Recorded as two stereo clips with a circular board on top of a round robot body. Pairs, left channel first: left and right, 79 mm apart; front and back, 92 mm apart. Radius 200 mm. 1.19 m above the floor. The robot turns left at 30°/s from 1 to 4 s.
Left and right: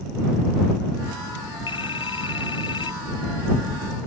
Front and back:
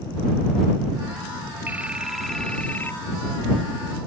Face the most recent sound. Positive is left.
turn(degrees=35)